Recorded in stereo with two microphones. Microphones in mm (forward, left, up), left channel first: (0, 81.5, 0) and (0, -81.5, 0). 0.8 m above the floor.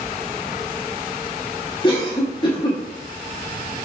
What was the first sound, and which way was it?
A cough, 25° left (ahead or behind).